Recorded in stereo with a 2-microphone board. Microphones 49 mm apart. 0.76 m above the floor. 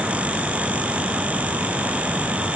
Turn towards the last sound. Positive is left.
No sound to turn to.